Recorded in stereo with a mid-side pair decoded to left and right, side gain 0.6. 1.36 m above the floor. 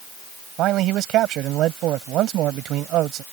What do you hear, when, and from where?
0.6 s a man speaking: 60° right